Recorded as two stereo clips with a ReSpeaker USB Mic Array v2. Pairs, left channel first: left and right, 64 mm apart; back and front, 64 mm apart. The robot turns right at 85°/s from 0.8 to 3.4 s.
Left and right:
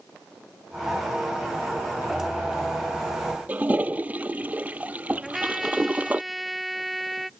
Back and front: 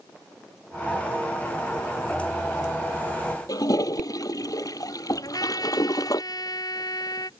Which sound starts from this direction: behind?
A trumpet, at 5.2 s.